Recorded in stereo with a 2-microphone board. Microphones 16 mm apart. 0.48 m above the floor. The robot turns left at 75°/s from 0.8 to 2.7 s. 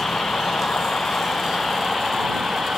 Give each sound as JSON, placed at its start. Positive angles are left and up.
{"t": 0.0, "sound": "a vehicle", "azimuth_deg": 100}